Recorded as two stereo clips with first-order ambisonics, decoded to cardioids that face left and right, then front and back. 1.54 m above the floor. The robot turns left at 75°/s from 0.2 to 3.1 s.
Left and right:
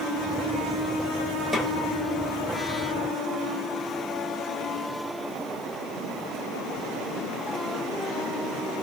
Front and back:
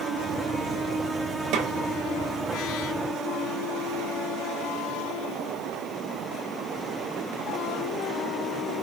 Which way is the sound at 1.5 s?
170° right.